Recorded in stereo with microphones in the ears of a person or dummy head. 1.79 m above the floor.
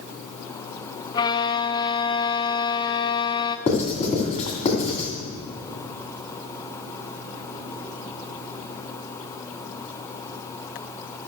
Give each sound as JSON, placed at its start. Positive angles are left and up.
{"t": 1.1, "sound": "a violin", "side_deg": 30, "distance_m": 0.5}
{"t": 3.7, "sound": "writing", "side_deg": 40, "distance_m": 2.5}